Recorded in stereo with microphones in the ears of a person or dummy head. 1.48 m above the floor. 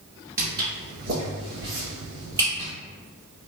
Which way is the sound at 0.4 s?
25° right (ahead or behind).